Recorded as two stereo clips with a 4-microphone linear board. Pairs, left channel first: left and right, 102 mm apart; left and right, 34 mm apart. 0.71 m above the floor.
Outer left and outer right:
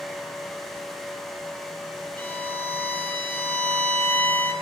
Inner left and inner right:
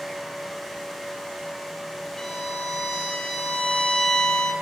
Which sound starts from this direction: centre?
A violin, at 2.2 s.